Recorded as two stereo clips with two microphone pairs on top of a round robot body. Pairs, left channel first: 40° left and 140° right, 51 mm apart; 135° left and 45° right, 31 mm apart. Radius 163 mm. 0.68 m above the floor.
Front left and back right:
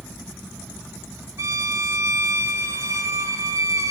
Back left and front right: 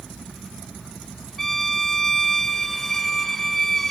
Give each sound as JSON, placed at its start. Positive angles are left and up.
{"t": 1.4, "sound": "a violin", "azimuth_deg": -150, "distance_m": 0.7}